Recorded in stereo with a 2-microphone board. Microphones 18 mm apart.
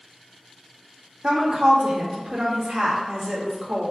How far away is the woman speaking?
About 1.4 m.